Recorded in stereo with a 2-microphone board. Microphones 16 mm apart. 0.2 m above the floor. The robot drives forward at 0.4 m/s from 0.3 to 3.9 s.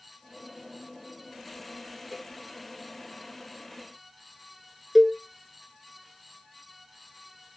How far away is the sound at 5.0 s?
About 0.8 m.